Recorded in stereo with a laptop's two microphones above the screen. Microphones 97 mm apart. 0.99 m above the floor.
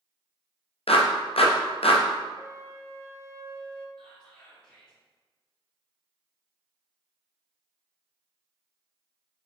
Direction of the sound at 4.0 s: 15° left (ahead or behind).